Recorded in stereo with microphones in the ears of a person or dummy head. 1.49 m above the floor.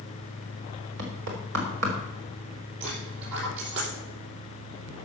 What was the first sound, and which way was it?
Knocking, 75° right (ahead or behind).